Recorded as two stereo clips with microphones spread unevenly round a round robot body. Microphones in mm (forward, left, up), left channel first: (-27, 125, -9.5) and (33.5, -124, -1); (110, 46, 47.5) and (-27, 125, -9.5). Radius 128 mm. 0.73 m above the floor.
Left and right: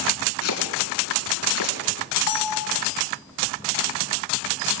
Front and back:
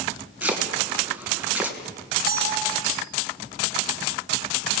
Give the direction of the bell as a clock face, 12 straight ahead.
8 o'clock.